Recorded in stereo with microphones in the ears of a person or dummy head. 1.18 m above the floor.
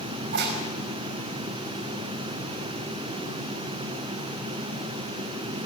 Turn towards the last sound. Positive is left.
turn(degrees=-55)  # may be behind; listen again after turning